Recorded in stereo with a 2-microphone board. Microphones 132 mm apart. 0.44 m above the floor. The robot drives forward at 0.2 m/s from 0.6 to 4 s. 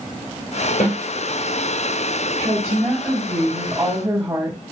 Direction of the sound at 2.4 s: 15° right (ahead or behind).